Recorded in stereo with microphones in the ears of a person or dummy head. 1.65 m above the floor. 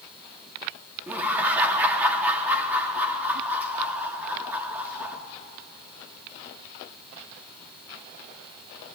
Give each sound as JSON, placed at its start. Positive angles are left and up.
{"t": 1.1, "sound": "laughter", "side_deg": -10, "distance_m": 4.0}